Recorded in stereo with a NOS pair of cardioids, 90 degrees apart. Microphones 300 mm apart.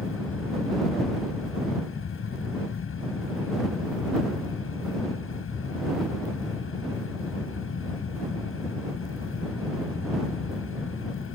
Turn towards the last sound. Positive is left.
turn(degrees=45)